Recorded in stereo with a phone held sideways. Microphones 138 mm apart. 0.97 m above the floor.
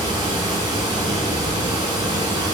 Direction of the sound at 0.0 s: 30° right (ahead or behind).